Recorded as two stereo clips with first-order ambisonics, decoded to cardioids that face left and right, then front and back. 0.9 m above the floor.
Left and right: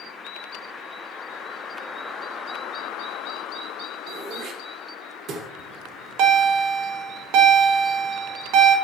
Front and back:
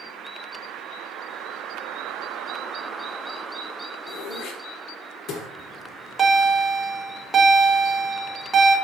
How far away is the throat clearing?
About 1.0 m.